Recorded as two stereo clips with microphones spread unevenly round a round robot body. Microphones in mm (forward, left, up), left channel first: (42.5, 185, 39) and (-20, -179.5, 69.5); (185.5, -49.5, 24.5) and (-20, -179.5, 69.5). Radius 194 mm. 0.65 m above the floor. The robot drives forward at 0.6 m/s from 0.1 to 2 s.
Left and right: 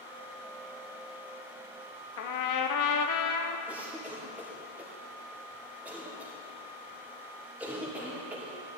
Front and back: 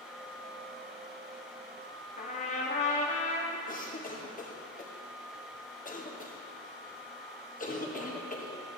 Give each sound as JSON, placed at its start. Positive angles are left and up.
{"t": 2.2, "sound": "a trumpet", "azimuth_deg": 75, "distance_m": 0.8}
{"t": 3.7, "sound": "a cough", "azimuth_deg": -10, "distance_m": 2.0}